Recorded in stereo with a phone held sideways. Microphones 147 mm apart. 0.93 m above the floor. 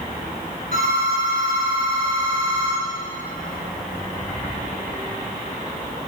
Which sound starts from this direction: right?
A phone ringing, at 0.7 s.